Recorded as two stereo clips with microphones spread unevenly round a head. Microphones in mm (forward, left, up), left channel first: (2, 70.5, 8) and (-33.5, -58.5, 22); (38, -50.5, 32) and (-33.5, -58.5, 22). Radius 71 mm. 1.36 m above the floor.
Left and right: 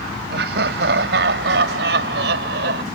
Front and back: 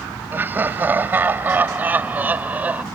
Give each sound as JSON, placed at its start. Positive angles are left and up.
{"t": 0.3, "sound": "laughter", "azimuth_deg": -110}